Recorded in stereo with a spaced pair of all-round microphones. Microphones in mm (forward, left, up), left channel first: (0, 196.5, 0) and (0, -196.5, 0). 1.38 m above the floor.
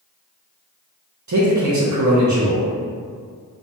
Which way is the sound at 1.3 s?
45° right (ahead or behind).